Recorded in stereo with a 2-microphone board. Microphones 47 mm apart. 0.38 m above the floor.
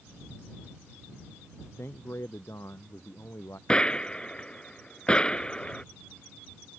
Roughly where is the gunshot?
Left.